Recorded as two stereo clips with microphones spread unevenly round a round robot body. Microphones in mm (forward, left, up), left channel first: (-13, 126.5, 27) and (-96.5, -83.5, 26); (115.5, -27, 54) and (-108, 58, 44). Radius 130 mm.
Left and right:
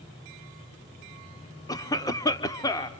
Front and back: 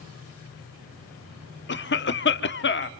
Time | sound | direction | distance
1.7 | a cough | 5° right | 1.1 m